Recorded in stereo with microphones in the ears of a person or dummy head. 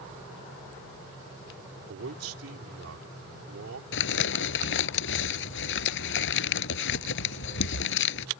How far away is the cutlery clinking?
I don't hear cutlery clinking.